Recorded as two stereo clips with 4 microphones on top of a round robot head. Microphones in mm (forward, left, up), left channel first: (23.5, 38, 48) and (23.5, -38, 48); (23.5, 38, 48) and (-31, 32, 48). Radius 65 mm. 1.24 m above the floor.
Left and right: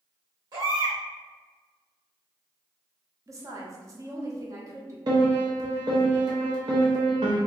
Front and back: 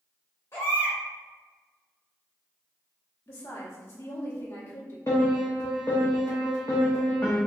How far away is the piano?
About 0.8 m.